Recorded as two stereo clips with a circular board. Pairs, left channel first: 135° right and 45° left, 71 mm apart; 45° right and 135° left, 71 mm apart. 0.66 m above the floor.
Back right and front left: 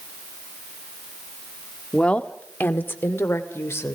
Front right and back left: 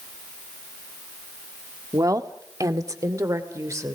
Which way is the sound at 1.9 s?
150° left.